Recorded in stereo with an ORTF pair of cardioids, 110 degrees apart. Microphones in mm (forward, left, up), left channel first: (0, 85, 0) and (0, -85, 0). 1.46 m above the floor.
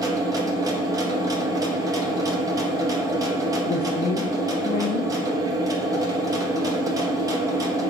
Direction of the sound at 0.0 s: 20° right.